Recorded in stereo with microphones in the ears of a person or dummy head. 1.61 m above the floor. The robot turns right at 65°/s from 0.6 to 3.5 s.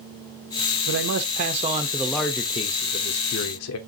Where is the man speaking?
80° right, 0.9 m; by 3.8 s 90° left, 0.9 m.